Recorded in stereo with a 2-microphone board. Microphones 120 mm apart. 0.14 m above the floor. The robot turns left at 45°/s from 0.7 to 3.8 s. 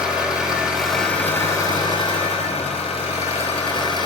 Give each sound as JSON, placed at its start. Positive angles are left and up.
{"t": 0.0, "sound": "an engine running", "azimuth_deg": -175, "distance_m": 0.9}